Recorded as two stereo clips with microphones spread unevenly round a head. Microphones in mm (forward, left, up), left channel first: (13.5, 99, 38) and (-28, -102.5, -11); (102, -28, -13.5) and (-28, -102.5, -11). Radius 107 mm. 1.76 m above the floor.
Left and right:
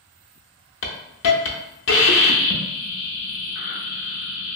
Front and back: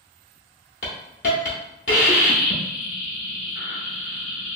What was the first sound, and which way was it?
A hiss, 70° left.